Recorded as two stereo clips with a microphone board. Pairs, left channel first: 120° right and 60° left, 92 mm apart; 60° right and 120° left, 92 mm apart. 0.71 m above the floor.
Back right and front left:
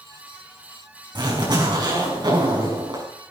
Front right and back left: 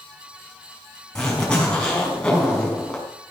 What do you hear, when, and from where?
1.1 s a zipper: 25° left, 6.5 m